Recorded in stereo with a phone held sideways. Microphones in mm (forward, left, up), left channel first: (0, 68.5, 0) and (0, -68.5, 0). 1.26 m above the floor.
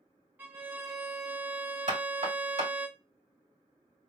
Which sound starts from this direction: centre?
A violin, at 0.4 s.